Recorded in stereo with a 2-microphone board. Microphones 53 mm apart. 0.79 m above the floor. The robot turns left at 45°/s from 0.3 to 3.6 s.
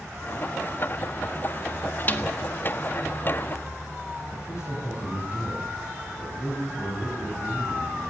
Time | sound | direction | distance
2.1 | a snare drum | 35° left (ahead or behind) | 1.5 m
4.3 | a man speaking | 80° left | 5 m